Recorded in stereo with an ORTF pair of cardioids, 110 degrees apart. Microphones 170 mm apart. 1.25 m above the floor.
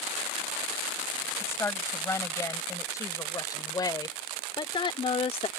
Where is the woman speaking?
15° left; by 5.5 s 35° left.